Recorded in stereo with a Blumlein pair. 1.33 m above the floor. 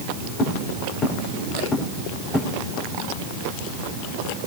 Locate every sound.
0.4 s footsteps: 30° left, 5 m; by 2.5 s 15° left, 5 m